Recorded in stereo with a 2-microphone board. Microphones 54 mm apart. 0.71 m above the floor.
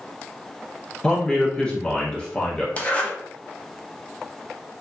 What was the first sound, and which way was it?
A man speaking, 20° left (ahead or behind).